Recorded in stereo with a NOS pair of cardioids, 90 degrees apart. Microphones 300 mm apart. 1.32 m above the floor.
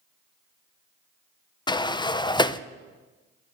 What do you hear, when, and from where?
1.7 s a sliding door: 15° left, 0.6 m